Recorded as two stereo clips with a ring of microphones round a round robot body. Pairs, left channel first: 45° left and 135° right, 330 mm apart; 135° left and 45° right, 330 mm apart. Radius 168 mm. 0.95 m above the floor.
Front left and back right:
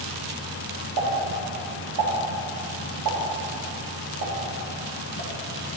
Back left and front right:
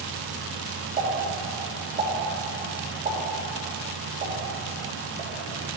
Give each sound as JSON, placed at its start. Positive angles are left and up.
{"t": 1.0, "sound": "a pop", "azimuth_deg": -115, "distance_m": 2.5}